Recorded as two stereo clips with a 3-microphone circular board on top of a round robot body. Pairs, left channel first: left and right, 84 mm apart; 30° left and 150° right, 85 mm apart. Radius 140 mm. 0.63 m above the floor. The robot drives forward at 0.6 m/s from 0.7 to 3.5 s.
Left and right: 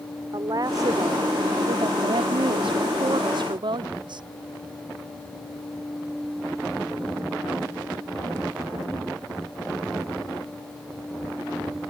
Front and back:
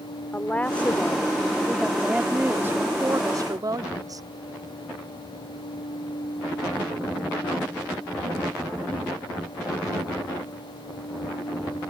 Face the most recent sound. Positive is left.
turn(degrees=-110)